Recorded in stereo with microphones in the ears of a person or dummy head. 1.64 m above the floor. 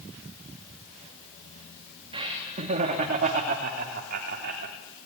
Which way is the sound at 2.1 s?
40° right (ahead or behind).